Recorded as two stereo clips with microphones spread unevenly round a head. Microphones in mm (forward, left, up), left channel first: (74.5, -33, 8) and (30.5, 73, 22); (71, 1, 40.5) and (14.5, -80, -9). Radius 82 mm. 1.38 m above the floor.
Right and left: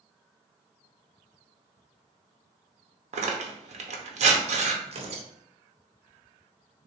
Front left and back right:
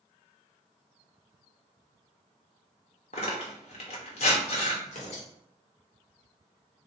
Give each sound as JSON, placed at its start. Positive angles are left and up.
{"t": 3.1, "sound": "tearing paper", "azimuth_deg": 105, "distance_m": 0.9}
{"t": 4.8, "sound": "tearing paper", "azimuth_deg": 85, "distance_m": 0.9}